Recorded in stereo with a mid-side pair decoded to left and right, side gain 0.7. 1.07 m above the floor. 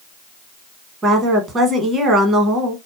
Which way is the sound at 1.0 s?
30° right.